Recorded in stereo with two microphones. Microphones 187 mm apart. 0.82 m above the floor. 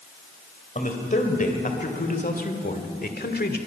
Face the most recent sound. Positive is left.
turn(degrees=60)  # may be behind; listen again after turning